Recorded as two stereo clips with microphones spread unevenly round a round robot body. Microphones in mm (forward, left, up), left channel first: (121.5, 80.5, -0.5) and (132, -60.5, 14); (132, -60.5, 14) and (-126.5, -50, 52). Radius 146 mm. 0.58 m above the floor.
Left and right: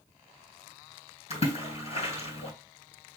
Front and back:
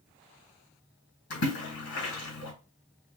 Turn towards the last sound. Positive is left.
turn(degrees=50)